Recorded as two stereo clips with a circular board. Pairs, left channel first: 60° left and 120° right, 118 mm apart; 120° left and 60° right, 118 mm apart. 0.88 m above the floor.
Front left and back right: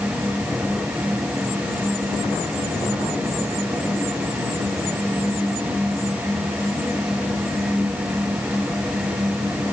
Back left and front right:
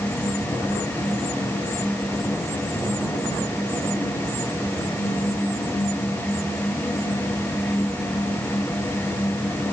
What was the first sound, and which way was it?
Only background noise.